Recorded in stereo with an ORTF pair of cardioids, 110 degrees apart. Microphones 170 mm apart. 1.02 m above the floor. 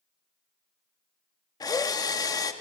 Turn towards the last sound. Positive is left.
turn(degrees=20)